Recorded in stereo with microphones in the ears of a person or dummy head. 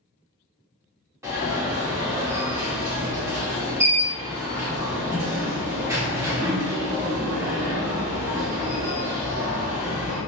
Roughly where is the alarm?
Centre.